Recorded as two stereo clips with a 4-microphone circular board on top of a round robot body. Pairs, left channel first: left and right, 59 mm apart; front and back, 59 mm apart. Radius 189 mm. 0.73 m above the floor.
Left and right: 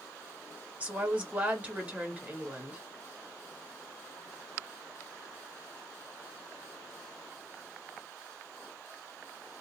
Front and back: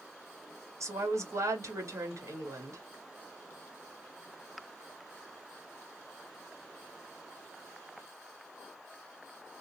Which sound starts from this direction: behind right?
A woman speaking, at 0.8 s.